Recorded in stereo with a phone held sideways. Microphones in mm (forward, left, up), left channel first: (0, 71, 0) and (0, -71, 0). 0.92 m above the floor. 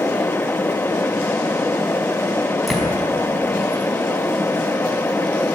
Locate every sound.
0.0 s a fan: 15° left (ahead or behind), 0.7 m
2.7 s a door slam: centre (ahead or behind), 5 m